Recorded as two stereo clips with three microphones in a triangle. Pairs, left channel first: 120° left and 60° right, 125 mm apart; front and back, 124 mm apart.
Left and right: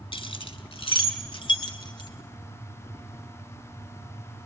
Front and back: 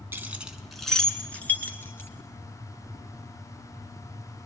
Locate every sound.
0.1 s keys jangling: 115° left, 1.4 m; by 2.1 s 70° left, 2.5 m